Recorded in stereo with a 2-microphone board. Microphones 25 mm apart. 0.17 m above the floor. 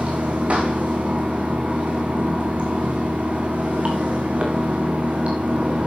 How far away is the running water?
About 3 m.